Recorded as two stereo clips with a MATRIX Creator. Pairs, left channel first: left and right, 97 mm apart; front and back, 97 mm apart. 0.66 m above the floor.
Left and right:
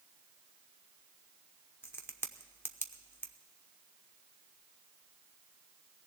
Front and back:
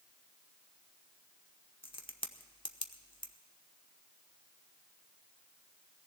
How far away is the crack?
About 0.8 m.